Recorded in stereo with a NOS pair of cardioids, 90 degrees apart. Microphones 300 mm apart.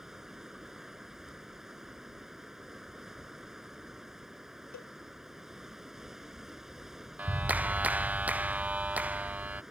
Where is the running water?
Straight ahead.